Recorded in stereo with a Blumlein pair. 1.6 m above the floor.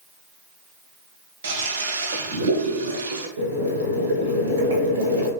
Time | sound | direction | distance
1.4 | a toilet flushing | 65° right | 0.9 m
3.4 | boiling | 65° right | 1.2 m